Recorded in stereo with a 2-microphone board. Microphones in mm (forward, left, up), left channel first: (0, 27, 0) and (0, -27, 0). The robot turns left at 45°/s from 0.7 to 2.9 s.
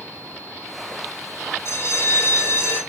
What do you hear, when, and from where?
1.6 s a bell: 80° left, 2.5 m; by 2.8 s 30° left, 2.5 m